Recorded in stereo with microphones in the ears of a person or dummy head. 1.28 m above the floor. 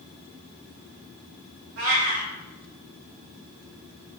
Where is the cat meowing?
40° right (ahead or behind), 0.7 m.